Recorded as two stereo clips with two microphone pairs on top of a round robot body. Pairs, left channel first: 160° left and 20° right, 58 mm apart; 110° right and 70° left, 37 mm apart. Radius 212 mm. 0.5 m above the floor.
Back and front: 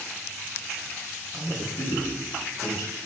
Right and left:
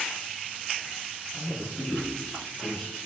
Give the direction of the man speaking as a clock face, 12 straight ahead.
6 o'clock.